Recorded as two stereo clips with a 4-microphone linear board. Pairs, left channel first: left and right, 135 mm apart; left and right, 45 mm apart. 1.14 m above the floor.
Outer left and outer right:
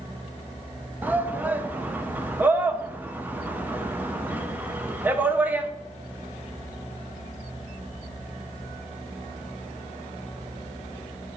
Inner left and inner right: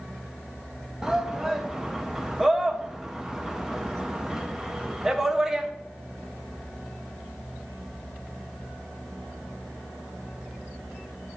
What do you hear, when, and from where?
1.0 s a shout: 10° right (ahead or behind), 0.5 m